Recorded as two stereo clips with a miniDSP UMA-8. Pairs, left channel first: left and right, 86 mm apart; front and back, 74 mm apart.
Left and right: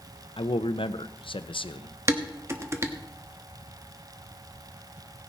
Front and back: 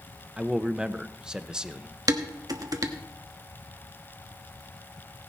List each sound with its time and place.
0.4 s a man speaking: 105° left, 0.7 m
2.1 s dishes clattering: 150° right, 1.2 m